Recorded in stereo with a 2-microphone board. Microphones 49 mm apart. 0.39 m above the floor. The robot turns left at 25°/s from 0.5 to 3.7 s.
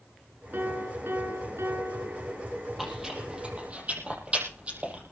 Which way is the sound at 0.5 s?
45° right.